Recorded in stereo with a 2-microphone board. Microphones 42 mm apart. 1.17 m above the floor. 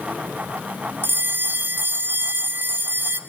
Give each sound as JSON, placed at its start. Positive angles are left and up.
{"t": 1.0, "sound": "a bell", "side_deg": -55, "distance_m": 2.5}